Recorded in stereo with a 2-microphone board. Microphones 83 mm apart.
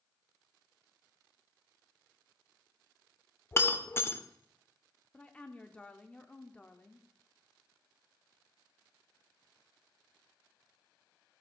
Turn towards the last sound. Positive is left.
turn(degrees=15)  # may be behind; listen again after turning